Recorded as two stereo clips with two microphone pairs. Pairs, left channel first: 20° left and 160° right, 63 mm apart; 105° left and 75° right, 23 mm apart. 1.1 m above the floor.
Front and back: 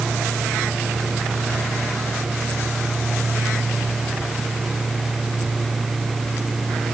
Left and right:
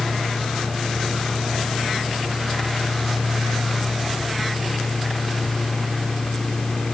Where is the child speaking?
No child speaking in this recording.